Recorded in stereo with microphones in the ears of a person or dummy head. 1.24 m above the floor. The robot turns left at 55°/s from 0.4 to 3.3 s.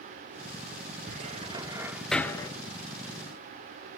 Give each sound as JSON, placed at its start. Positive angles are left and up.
{"t": 1.1, "sound": "a cupboard door", "side_deg": -50, "distance_m": 1.4}